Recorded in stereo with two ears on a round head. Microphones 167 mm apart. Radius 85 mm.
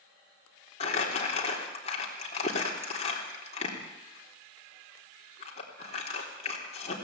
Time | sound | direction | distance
0.8 | crumpling | 30° left (ahead or behind) | 3.5 m